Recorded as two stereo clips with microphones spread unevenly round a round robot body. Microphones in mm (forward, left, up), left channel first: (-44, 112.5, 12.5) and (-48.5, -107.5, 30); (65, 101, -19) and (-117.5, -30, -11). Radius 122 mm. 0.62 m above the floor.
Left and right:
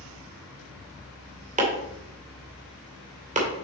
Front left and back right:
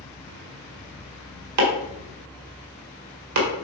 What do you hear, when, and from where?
1.6 s chopping: 150° right, 2 m